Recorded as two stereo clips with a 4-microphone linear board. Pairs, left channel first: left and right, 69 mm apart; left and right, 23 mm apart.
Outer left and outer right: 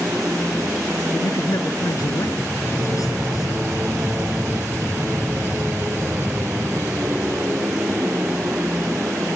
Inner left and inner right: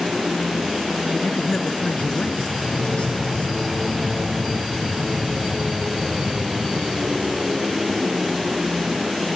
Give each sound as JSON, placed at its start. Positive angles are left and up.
{"t": 0.0, "sound": "an aircraft", "side_deg": -30}
{"t": 1.1, "sound": "a man speaking", "side_deg": 60}